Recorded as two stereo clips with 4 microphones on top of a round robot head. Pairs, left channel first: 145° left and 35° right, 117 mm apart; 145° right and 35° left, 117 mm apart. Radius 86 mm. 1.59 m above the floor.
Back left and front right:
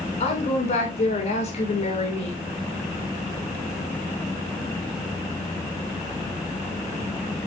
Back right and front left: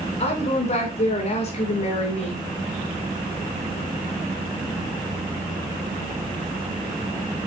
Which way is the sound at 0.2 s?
Straight behind.